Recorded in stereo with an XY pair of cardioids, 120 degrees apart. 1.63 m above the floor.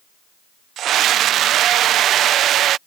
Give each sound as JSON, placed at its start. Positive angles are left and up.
{"t": 0.8, "sound": "a scream", "azimuth_deg": -65}